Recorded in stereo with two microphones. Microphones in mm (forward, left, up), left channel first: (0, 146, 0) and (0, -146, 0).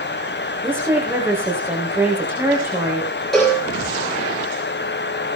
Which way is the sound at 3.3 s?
Centre (ahead or behind).